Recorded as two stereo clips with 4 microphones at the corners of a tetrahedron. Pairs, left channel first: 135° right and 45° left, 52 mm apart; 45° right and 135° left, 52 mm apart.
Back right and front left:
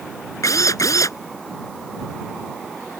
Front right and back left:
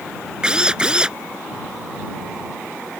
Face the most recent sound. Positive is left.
turn(degrees=-150)